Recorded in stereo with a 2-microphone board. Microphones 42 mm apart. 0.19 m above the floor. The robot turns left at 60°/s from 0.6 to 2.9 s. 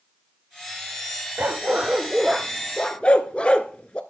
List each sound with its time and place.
1.4 s a dog barking: 55° right (ahead or behind), 0.9 m; by 4.0 s 30° left (ahead or behind), 0.9 m